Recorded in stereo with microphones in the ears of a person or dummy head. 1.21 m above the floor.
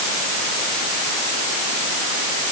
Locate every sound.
Only background noise.